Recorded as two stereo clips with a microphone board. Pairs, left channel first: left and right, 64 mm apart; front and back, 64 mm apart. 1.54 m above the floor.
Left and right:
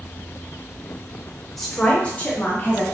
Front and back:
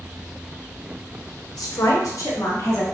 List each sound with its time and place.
1.6 s a woman speaking: 5° left, 0.8 m; by 2.8 s 35° left, 1.2 m